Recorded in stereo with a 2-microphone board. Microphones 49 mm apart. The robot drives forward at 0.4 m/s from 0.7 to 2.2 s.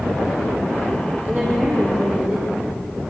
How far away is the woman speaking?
About 6 m.